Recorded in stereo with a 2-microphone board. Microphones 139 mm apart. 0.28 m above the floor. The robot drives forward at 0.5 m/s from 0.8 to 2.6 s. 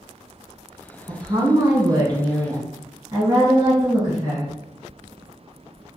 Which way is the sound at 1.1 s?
35° right (ahead or behind).